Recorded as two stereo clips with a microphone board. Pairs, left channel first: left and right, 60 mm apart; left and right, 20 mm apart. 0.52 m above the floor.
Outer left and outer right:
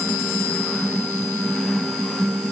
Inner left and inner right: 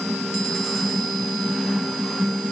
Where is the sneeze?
No sneeze in this recording.